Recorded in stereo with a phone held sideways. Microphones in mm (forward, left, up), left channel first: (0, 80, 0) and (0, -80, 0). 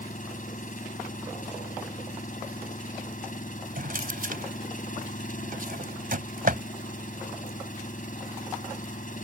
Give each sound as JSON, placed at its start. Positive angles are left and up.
{"t": 0.0, "sound": "an engine running", "side_deg": 55}
{"t": 3.8, "sound": "a drawer", "side_deg": -65}